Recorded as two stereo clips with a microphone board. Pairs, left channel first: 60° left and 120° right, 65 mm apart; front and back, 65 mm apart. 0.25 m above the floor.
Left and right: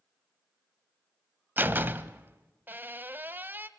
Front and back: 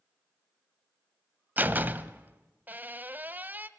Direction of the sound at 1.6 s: 145° right.